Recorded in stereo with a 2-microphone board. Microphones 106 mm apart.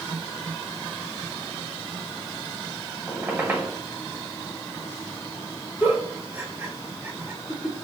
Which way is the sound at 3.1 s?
20° right (ahead or behind).